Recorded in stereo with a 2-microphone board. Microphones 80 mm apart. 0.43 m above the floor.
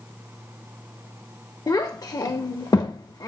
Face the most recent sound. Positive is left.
turn(degrees=50)  # may be behind; listen again after turning